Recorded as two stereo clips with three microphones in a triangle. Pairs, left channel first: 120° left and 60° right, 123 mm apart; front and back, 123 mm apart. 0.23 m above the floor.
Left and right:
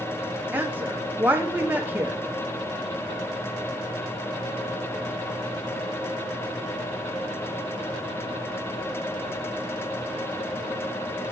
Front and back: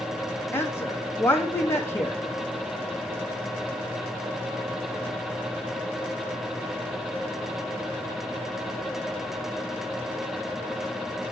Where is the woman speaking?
20° right, 1.0 m.